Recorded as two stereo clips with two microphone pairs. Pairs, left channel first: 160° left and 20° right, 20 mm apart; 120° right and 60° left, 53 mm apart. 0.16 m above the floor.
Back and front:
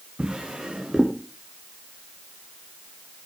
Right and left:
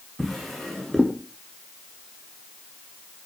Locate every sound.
0.2 s a drawer: 35° right, 3.5 m